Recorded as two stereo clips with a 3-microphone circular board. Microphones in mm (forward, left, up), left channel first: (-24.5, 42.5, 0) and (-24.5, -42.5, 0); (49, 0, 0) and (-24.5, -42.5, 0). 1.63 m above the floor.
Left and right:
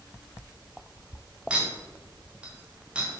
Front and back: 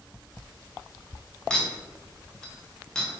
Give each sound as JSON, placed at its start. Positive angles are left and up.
{"t": 1.5, "sound": "a clink", "azimuth_deg": -40, "distance_m": 0.7}